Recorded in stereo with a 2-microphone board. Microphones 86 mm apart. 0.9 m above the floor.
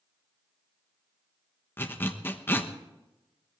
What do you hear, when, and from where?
1.8 s a zipper: 20° left (ahead or behind), 1.0 m